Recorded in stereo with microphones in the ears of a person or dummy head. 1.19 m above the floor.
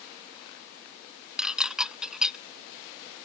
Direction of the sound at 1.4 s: Centre (ahead or behind).